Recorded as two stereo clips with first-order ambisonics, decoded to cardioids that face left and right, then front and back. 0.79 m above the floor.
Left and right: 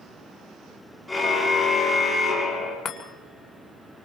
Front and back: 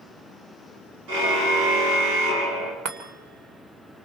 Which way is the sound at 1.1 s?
175° left.